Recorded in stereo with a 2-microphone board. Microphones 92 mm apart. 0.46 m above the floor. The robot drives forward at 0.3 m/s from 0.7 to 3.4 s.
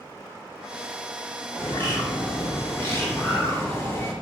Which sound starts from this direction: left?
A bird, at 1.6 s.